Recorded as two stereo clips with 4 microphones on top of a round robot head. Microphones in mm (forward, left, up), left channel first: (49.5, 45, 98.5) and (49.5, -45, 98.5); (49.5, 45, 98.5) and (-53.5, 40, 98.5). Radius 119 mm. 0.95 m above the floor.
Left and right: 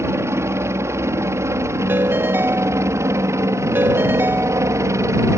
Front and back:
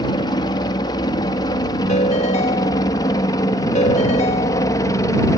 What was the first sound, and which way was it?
A helicopter, 35° right.